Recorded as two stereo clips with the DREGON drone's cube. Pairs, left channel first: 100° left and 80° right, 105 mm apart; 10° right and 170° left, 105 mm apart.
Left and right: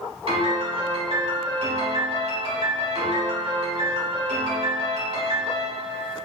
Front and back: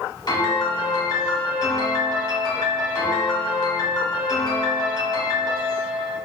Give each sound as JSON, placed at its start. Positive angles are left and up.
{"t": 0.3, "sound": "a piano", "azimuth_deg": -60, "distance_m": 1.1}